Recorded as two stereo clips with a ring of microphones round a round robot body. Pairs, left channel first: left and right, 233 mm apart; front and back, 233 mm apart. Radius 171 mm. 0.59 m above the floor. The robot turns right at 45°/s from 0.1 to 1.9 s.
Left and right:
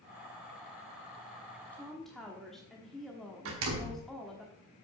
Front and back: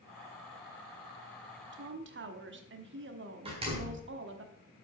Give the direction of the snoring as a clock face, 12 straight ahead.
I don't hear snoring.